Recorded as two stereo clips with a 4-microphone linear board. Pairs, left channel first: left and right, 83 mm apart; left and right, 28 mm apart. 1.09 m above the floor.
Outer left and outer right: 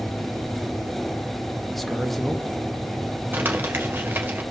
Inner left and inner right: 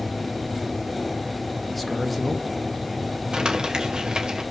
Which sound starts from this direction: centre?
A man speaking, at 1.7 s.